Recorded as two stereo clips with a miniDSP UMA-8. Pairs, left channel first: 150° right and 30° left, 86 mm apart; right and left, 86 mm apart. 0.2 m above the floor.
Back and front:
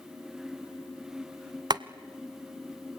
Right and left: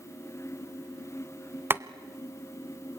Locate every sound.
1.7 s boiling: 30° left, 0.7 m